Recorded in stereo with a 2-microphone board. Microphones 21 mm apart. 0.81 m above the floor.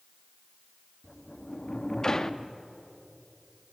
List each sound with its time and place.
1.0 s a sliding door: 25° left (ahead or behind), 0.6 m